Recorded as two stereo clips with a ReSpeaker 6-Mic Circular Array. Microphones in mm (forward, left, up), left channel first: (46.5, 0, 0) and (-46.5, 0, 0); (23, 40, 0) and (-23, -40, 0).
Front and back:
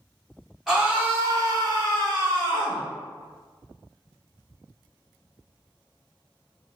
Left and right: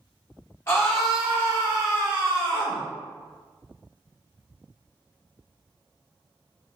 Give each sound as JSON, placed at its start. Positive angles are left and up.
{"t": 0.7, "sound": "a scream", "azimuth_deg": 95, "distance_m": 0.7}